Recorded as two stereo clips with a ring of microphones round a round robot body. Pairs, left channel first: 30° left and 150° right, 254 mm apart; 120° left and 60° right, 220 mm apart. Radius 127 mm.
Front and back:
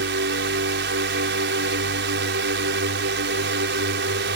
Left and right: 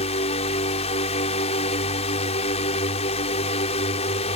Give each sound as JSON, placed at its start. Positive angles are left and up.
{"t": 0.0, "sound": "a drone", "azimuth_deg": 180}